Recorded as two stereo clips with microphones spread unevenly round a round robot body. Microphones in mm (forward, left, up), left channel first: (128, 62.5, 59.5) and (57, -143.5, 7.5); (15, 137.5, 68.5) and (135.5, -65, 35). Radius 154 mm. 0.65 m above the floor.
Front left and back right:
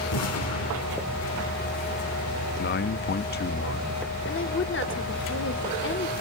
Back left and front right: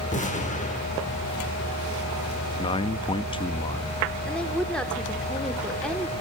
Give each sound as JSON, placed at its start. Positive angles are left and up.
{"t": 0.1, "sound": "an explosion", "azimuth_deg": 55, "distance_m": 2.5}
{"t": 2.6, "sound": "a man speaking", "azimuth_deg": 50, "distance_m": 0.6}
{"t": 4.3, "sound": "a woman speaking", "azimuth_deg": 30, "distance_m": 2.0}